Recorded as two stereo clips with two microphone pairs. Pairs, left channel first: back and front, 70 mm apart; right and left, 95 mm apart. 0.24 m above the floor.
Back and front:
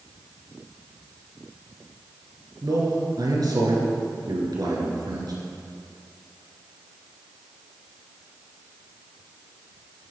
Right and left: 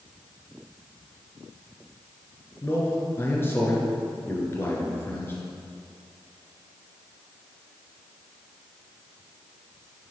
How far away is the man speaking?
About 3 m.